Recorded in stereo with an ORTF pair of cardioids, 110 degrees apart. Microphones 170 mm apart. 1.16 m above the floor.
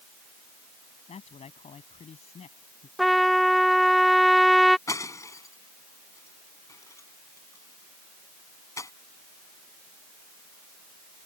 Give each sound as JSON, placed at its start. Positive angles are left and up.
{"t": 1.1, "sound": "a man speaking", "azimuth_deg": 40}
{"t": 3.0, "sound": "a trumpet", "azimuth_deg": 0}
{"t": 4.9, "sound": "breaking glass", "azimuth_deg": 20}